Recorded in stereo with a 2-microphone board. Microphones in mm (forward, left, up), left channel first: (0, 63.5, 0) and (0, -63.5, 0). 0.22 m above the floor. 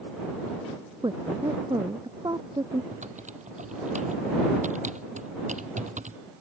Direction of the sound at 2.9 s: 75° right (ahead or behind).